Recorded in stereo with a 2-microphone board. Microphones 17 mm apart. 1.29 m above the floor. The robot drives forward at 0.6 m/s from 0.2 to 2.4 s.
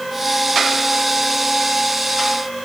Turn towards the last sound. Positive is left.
No sound to turn to.